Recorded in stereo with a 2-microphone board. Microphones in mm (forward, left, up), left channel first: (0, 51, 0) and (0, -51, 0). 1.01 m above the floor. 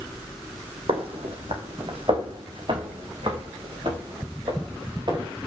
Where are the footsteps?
65° right (ahead or behind), 3.5 m; by 5.3 s 50° right (ahead or behind), 8.5 m.